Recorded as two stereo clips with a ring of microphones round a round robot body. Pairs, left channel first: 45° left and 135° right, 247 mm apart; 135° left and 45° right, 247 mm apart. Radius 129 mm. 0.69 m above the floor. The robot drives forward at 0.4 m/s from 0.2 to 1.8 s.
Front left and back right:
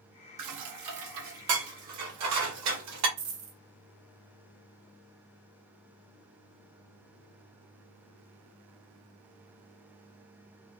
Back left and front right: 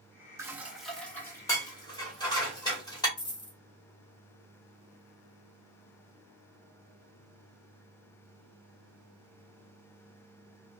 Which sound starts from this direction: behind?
A dropped coin, at 3.2 s.